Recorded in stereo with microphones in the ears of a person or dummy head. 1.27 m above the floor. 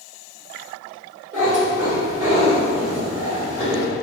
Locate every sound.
1.3 s a cat meowing: 20° right (ahead or behind), 1.0 m